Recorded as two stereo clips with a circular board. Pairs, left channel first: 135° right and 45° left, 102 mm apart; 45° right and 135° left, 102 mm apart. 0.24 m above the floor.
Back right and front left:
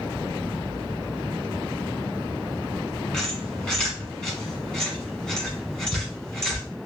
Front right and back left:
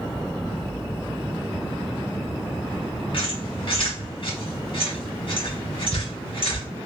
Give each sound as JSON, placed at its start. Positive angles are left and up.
{"t": 3.1, "sound": "a squeak", "azimuth_deg": -50, "distance_m": 1.5}